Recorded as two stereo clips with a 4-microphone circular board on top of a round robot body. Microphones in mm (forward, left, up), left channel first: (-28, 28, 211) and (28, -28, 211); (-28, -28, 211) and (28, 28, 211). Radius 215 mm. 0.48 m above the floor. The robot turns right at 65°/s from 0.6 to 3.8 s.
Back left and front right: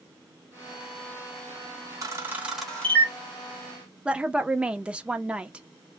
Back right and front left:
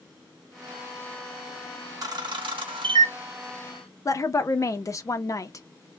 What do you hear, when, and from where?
2.0 s a camera shutter: straight ahead, 0.8 m; by 3.1 s 75° left, 0.8 m
4.0 s a woman speaking: 115° right, 0.8 m